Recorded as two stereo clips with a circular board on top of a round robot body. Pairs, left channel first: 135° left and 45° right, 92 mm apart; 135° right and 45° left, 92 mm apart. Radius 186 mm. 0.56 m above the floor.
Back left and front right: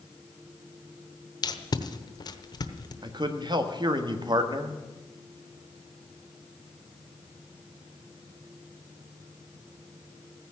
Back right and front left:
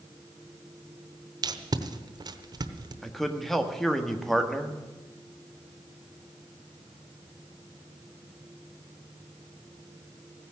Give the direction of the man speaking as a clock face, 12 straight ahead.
2 o'clock.